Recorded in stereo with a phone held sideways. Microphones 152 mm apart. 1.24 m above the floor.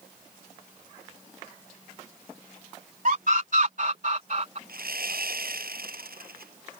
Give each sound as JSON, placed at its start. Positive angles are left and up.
{"t": 3.0, "sound": "a scream", "side_deg": -65}
{"t": 4.7, "sound": "sawing", "side_deg": -85}